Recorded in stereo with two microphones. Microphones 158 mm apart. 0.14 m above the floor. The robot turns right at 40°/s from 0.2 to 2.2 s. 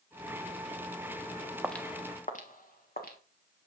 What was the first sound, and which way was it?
Footsteps, 5° right (ahead or behind).